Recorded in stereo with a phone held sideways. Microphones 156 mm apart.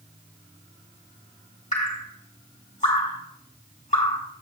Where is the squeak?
I don't hear a squeak.